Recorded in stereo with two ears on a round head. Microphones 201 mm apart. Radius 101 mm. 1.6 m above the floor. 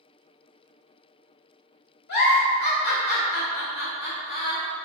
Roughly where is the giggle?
Left.